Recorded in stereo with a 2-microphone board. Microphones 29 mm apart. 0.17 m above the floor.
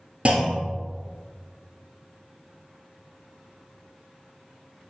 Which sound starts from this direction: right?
A clunk, at 0.2 s.